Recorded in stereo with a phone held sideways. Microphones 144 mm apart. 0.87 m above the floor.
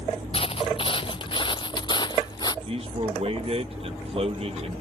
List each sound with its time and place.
0.3 s footsteps: 40° left (ahead or behind); by 2.5 s 30° left (ahead or behind)
2.6 s a man speaking: 40° right (ahead or behind)